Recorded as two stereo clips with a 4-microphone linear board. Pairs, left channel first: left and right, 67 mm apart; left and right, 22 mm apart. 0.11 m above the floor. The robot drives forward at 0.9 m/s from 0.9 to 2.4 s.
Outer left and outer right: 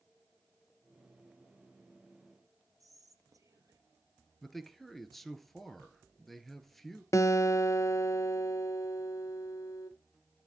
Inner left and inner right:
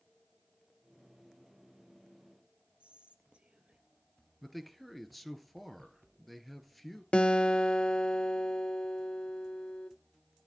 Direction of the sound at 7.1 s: 50° left (ahead or behind).